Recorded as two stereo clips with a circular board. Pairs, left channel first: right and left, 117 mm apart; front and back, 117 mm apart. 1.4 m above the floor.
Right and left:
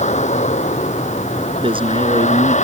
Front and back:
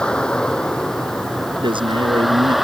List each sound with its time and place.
0.0 s a vehicle: 85° right; by 2.7 s 90° right
1.6 s a man speaking: 135° left